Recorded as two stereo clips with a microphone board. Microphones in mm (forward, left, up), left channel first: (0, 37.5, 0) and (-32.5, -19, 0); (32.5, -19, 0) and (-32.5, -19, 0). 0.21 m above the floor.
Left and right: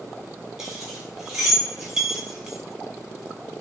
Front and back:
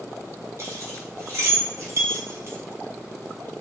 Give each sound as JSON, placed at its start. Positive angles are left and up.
{"t": 0.6, "sound": "keys jangling", "azimuth_deg": 160, "distance_m": 1.0}